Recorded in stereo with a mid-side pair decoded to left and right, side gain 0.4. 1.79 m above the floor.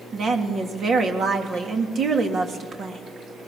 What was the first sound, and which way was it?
A woman speaking, 55° right.